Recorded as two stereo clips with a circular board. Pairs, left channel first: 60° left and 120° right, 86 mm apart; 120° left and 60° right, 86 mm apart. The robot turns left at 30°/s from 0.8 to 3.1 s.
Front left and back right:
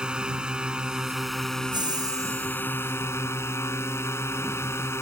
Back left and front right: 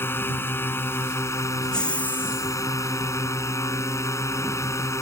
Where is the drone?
165° left; by 5.0 s 95° left.